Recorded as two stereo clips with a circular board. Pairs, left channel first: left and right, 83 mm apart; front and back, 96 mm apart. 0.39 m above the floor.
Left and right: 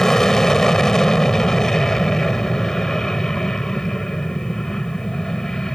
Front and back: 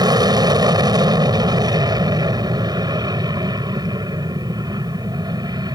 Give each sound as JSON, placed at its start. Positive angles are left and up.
{"t": 0.0, "sound": "an aircraft", "azimuth_deg": 170}